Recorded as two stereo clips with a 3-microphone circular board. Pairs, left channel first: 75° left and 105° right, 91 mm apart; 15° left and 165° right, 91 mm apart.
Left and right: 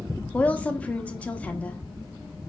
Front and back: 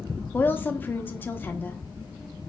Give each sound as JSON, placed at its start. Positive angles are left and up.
{"t": 0.3, "sound": "a woman speaking", "azimuth_deg": 30, "distance_m": 1.0}